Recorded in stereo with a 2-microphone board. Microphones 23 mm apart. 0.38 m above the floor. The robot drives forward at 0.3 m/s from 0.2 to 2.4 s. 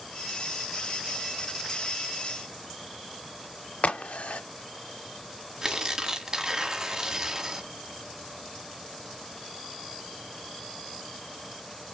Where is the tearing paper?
30° right (ahead or behind), 1.2 m.